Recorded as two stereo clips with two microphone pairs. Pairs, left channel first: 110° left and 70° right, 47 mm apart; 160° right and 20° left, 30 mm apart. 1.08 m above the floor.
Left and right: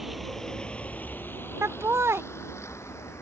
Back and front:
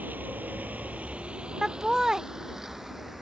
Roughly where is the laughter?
Ahead right.